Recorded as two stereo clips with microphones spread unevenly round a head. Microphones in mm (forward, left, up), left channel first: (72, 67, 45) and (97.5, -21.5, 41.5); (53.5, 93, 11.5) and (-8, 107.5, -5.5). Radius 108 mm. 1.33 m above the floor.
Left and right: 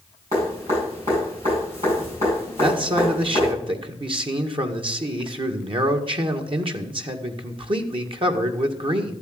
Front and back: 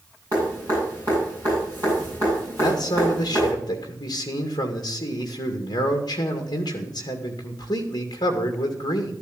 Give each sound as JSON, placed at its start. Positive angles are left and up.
{"t": 0.3, "sound": "dripping", "azimuth_deg": -130, "distance_m": 9.0}
{"t": 2.6, "sound": "a man speaking", "azimuth_deg": -50, "distance_m": 2.0}